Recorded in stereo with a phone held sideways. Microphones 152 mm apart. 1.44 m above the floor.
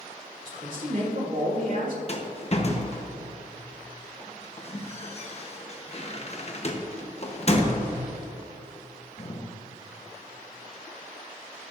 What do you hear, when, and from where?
0.5 s a man speaking: 60° right (ahead or behind), 2.5 m
2.1 s a rattle: 45° left (ahead or behind), 1.0 m